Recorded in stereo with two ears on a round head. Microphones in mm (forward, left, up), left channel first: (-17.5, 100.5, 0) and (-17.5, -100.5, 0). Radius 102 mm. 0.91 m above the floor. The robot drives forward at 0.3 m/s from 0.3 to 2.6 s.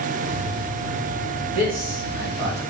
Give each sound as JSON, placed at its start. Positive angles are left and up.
{"t": 1.5, "sound": "a man speaking", "side_deg": -40, "distance_m": 1.6}